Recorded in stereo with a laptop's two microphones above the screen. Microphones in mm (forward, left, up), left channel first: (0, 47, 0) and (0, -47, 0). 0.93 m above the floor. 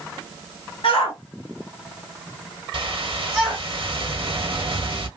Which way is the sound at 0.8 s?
75° left (ahead or behind).